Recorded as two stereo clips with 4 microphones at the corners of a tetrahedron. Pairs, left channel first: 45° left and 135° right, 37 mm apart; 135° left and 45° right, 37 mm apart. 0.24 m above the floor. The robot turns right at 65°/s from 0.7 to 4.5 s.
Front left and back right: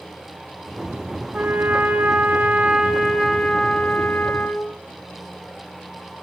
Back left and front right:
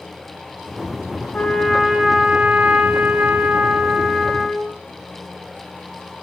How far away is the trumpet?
About 3 m.